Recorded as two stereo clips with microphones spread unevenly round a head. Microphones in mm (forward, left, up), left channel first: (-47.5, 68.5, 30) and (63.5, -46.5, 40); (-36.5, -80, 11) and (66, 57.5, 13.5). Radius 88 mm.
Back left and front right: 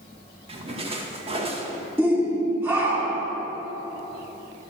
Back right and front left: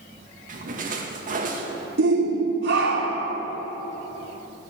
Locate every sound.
0.5 s a splash: 10° left, 2 m
2.0 s a shout: 30° left, 4 m